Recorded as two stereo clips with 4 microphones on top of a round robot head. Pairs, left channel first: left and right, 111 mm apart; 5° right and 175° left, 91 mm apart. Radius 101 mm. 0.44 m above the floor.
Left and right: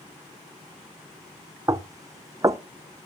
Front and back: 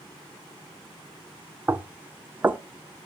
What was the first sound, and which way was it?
Knocking, 130° right.